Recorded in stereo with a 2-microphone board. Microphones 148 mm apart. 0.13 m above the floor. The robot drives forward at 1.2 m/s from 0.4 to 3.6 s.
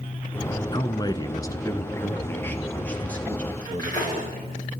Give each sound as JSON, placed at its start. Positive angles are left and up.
{"t": 0.7, "sound": "a man speaking", "side_deg": 30, "distance_m": 1.3}
{"t": 3.6, "sound": "cutlery clinking", "side_deg": 25, "distance_m": 9.0}